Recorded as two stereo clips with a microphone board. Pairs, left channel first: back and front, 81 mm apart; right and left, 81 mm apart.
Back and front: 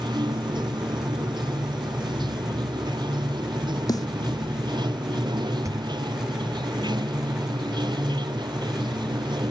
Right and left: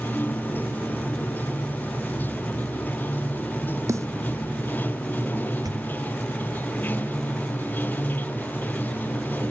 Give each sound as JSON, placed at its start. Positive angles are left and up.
{"t": 0.0, "sound": "running water", "azimuth_deg": -20}
{"t": 3.9, "sound": "a snare drum", "azimuth_deg": 145}
{"t": 5.6, "sound": "a pop", "azimuth_deg": 50}